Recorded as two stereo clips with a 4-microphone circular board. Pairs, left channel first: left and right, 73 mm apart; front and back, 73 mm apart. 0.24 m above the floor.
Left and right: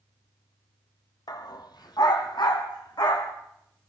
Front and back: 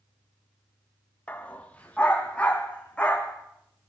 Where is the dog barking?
70° left, 1.5 m.